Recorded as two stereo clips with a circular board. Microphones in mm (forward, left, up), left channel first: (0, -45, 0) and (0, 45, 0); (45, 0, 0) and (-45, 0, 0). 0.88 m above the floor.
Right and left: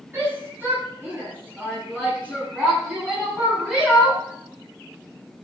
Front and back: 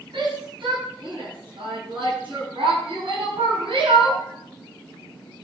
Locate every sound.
0.1 s a shout: 155° left, 9.5 m; by 4.2 s 170° left, 11.5 m